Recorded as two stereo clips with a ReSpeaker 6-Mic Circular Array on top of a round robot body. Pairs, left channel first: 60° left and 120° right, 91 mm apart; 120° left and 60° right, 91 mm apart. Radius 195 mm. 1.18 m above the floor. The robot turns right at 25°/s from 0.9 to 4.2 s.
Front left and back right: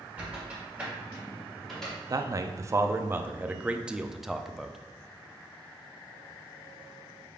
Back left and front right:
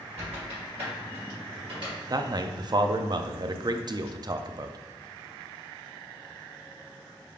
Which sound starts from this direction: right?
A man speaking, at 2.1 s.